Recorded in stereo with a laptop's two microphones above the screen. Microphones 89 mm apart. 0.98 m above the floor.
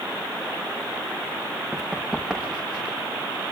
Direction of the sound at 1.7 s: 5° left (ahead or behind).